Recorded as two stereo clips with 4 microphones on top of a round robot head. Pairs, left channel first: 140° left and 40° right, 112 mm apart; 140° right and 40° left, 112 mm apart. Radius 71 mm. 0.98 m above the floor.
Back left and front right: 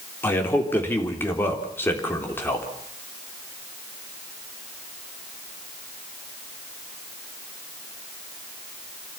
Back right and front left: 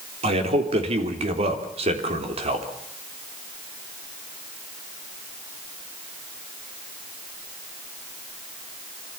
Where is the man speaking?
70° left, 3.5 m.